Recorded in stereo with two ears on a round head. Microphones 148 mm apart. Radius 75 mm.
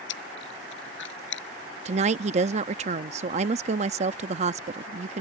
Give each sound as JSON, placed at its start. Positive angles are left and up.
{"t": 0.1, "sound": "chewing", "side_deg": 70}
{"t": 1.9, "sound": "a woman speaking", "side_deg": -40}